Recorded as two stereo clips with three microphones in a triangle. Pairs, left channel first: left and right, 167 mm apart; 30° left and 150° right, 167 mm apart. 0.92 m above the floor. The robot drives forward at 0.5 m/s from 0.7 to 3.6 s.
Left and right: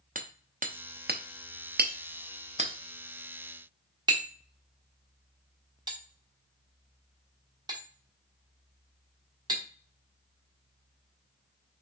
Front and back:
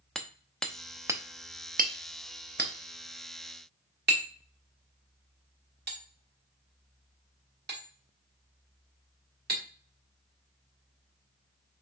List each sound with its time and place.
0.1 s hammering: 55° right, 0.6 m; by 9.6 s 155° right, 1.2 m